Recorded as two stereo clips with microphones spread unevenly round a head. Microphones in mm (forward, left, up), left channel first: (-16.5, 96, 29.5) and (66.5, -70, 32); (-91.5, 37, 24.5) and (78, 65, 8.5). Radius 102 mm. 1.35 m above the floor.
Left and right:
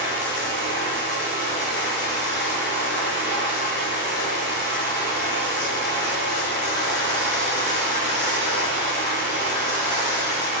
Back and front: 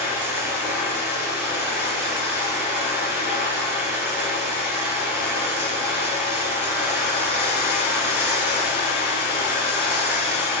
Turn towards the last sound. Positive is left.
turn(degrees=90)